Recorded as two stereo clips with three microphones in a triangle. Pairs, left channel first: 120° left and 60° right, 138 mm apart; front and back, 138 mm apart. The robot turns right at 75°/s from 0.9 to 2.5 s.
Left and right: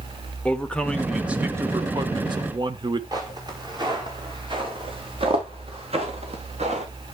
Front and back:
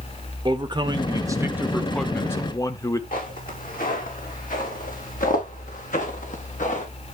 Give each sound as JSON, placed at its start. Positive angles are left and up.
{"t": 0.5, "sound": "a man speaking", "azimuth_deg": -165, "distance_m": 1.0}
{"t": 3.1, "sound": "footsteps", "azimuth_deg": 0, "distance_m": 4.5}